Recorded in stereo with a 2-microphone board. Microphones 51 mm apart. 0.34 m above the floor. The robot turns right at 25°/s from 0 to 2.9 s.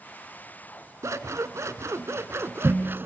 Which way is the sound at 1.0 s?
95° right.